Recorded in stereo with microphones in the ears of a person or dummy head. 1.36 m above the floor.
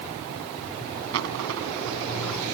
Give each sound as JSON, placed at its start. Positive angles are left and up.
{"t": 1.1, "sound": "a dropped coin", "side_deg": -75}